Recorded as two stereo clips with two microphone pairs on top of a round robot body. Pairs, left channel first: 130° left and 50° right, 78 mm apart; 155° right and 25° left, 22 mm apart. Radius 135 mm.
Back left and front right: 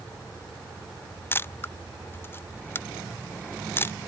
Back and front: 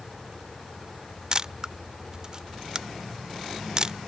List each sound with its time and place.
1.3 s a camera shutter: 75° left